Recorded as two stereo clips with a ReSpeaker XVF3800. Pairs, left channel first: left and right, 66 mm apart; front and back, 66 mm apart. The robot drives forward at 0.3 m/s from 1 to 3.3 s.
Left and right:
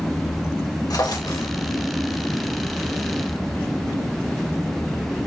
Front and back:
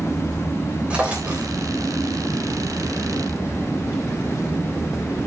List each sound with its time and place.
0.9 s a drawer: 105° left, 3 m; by 1.5 s 110° left, 3 m